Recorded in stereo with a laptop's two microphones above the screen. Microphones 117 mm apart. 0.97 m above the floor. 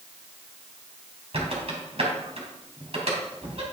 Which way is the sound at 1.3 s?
60° right (ahead or behind).